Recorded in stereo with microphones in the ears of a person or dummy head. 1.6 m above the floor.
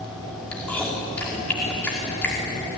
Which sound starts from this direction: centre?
Chewing, at 0.5 s.